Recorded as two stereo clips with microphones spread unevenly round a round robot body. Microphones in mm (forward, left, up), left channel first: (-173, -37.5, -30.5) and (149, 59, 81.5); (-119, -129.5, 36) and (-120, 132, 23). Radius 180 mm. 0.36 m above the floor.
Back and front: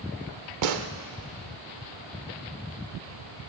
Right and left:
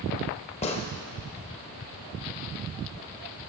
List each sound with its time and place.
0.6 s a gunshot: 25° right, 0.7 m